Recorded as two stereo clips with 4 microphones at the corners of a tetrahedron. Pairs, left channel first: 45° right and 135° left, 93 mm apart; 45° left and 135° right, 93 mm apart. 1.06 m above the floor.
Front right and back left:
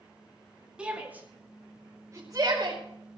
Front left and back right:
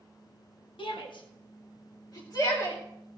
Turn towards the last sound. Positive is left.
turn(degrees=95)